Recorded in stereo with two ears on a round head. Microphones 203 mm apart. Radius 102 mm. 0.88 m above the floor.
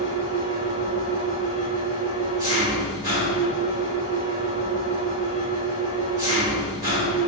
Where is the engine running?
15° right (ahead or behind), 2.5 m.